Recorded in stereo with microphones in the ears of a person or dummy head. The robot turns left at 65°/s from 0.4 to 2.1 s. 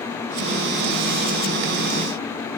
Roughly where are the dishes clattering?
I don't hear dishes clattering.